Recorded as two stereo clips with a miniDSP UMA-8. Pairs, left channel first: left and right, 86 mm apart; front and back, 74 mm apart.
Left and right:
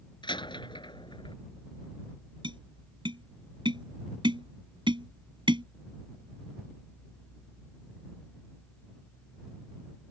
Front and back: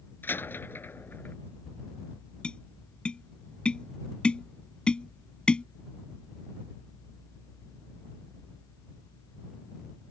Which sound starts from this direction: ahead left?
A door slam, at 0.2 s.